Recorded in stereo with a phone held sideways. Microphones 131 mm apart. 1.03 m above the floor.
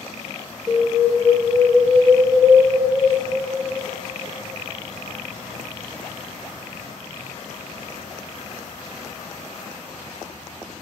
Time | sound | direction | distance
0.7 | an alarm | 5° right (ahead or behind) | 2 m